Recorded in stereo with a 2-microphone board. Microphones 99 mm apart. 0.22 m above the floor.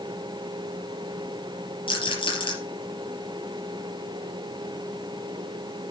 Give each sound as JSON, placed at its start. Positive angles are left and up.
{"t": 1.9, "sound": "a rattle", "side_deg": 60, "distance_m": 4.5}